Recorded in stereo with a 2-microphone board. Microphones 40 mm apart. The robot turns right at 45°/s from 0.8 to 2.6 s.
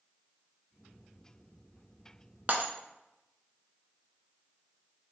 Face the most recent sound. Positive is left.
turn(degrees=-45)  # may be behind; listen again after turning